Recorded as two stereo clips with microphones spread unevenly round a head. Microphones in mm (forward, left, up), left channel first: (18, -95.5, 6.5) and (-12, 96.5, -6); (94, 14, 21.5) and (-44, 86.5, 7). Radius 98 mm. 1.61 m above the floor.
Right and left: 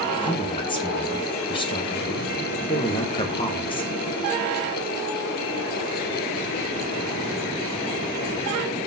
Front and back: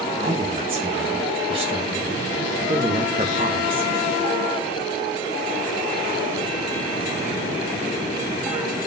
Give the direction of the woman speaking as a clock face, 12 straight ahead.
5 o'clock.